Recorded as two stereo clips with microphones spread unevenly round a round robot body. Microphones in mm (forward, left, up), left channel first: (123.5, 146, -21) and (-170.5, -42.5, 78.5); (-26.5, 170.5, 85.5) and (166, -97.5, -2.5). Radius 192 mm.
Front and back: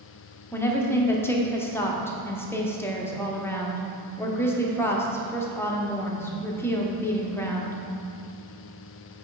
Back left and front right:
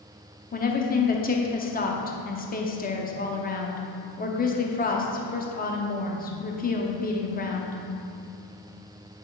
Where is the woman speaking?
60° left, 1.0 m.